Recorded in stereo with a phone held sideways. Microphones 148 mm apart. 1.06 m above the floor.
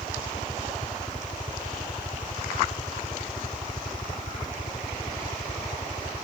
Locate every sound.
0.0 s a helicopter: 45° left (ahead or behind)